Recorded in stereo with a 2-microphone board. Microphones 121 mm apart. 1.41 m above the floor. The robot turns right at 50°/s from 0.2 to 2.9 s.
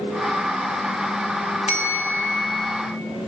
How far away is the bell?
About 1.0 m.